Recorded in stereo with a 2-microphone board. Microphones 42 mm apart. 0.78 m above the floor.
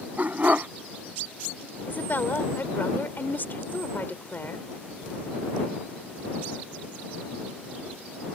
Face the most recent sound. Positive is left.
turn(degrees=55)  # may be behind; listen again after turning